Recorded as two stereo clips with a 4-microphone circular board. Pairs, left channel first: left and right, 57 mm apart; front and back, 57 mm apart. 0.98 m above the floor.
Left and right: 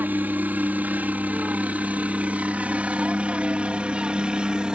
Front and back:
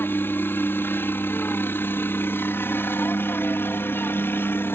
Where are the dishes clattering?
No dishes clattering in this recording.